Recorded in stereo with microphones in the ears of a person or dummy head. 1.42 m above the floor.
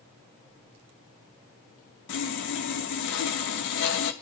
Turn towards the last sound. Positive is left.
turn(degrees=65)  # may be behind; listen again after turning